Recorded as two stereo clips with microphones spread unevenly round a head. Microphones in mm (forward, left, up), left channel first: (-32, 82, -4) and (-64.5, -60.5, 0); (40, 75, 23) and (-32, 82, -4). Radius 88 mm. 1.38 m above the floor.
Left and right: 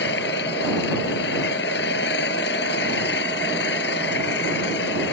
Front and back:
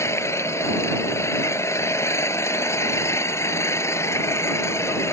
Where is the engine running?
40° left.